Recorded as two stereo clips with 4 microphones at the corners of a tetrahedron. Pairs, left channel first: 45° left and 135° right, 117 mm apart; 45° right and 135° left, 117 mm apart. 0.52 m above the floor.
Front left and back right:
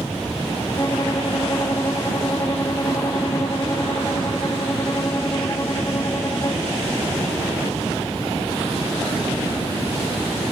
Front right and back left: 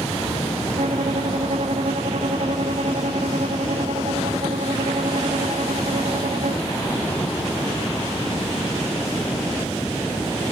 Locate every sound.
0.8 s a violin: 110° left